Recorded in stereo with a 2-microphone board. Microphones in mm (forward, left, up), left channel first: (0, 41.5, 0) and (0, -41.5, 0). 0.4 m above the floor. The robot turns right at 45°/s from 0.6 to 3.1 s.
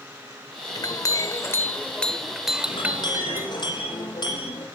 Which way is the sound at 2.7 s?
75° left (ahead or behind).